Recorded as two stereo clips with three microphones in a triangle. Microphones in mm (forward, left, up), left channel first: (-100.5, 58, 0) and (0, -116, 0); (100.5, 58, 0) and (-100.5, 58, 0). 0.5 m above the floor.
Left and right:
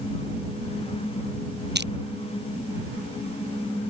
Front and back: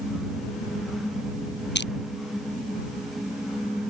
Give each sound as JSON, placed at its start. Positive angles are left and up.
{"t": 1.8, "sound": "crushing", "azimuth_deg": -30}